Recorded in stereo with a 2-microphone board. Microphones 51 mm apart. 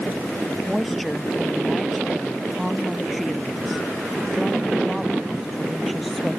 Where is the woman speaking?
Centre (ahead or behind).